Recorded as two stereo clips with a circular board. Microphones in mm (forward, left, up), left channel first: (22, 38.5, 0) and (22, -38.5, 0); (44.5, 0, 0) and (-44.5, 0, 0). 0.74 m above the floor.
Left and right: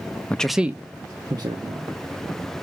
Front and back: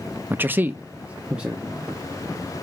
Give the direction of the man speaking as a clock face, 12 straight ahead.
7 o'clock.